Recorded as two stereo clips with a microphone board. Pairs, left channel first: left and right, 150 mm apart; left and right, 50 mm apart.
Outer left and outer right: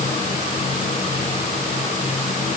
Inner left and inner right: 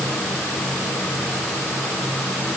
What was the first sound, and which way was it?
Only background noise.